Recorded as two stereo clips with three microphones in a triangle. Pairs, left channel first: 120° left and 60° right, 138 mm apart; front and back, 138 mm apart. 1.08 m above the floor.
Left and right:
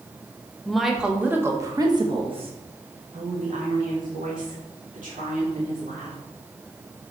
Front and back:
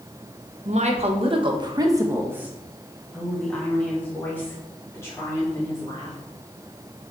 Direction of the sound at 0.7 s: 155° right.